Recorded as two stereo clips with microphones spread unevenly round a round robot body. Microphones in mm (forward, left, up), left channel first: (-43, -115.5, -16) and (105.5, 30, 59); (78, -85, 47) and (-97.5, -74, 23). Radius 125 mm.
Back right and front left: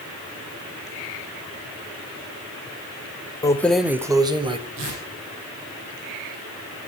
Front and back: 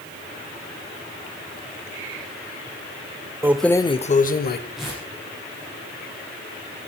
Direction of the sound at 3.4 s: 130° right.